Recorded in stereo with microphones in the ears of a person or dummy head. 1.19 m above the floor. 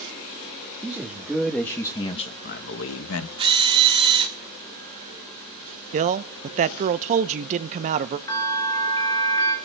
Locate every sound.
0.8 s a man speaking: 5° right (ahead or behind), 1.5 m; by 3.3 s 85° left, 0.9 m
3.4 s a drill: 30° right (ahead or behind), 2.5 m
5.9 s a man speaking: 40° right (ahead or behind), 0.6 m
8.3 s a bell: 20° left (ahead or behind), 4 m